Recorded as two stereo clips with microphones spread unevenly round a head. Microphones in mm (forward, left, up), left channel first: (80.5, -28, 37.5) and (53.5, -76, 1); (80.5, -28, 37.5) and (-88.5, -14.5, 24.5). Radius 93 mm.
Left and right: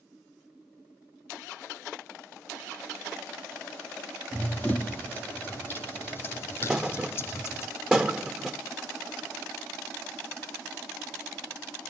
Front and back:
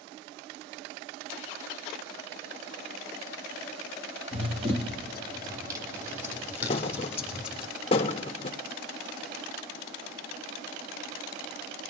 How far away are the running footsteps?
About 2.5 m.